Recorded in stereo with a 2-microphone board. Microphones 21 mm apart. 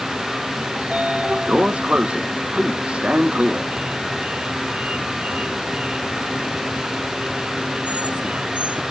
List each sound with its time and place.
0.8 s a sliding door: 80° right